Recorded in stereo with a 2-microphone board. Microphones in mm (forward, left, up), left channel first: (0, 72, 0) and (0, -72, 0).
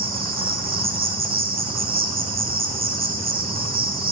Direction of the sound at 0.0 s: 80° right.